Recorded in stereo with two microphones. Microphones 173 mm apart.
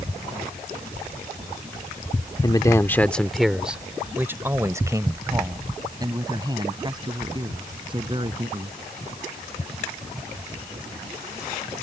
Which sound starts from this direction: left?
A man speaking, at 2.4 s.